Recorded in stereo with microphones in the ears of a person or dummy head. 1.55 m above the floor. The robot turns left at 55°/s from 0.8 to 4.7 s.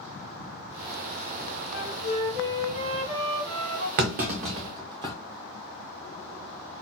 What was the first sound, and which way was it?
A flute, 60° left.